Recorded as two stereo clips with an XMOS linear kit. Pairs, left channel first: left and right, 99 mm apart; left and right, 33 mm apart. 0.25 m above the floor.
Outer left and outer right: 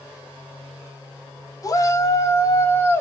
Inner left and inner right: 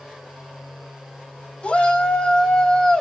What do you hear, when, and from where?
1.6 s a shout: 40° left (ahead or behind), 1.3 m; by 3.0 s 20° left (ahead or behind), 1.4 m